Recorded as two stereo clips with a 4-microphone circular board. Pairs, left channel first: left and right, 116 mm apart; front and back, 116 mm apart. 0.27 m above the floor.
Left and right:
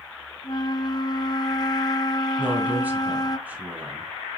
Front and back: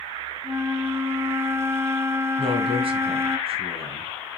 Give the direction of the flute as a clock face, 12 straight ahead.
8 o'clock.